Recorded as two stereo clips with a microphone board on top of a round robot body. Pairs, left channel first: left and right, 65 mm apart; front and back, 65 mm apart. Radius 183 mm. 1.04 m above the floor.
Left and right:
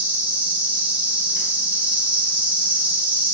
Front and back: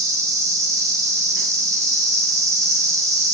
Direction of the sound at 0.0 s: 150° right.